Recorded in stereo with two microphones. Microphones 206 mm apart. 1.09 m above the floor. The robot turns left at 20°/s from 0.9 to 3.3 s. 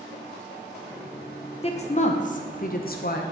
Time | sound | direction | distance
1.6 | a woman speaking | 140° left | 0.5 m